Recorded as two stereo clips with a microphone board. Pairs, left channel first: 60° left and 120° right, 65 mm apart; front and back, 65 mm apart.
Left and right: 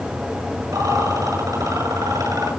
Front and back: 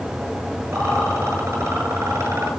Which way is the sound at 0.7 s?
135° right.